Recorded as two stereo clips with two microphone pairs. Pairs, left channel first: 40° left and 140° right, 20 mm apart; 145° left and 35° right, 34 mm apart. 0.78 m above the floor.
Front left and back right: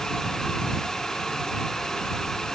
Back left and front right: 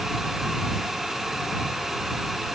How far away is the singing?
No singing in this recording.